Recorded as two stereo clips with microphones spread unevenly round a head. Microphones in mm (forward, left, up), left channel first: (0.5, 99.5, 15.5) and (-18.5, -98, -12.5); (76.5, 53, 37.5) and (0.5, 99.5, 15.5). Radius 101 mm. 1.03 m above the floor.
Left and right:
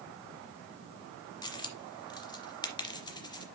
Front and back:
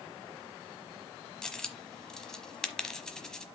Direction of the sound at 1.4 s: 35° left.